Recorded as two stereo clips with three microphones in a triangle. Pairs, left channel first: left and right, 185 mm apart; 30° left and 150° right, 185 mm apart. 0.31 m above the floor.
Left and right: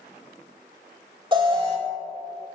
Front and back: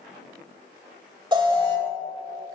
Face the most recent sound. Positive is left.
turn(degrees=-120)